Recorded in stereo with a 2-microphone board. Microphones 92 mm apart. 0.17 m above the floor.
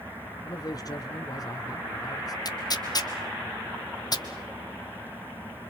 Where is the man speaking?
45° left (ahead or behind), 2 m.